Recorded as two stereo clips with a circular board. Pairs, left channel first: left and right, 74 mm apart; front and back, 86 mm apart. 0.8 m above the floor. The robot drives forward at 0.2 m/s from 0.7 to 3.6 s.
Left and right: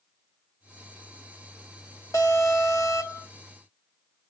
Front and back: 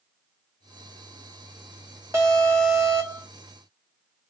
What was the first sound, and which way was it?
An alarm, 125° left.